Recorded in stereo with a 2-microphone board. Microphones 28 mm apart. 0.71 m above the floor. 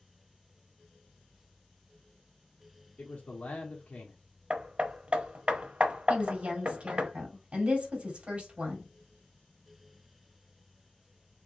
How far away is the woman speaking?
About 1.7 m.